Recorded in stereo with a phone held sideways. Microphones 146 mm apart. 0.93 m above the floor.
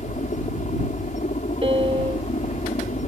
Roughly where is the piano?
Right.